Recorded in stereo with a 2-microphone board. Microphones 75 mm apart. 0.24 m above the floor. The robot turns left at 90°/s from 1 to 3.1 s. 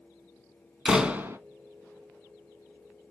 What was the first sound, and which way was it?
A door slam, 10° right.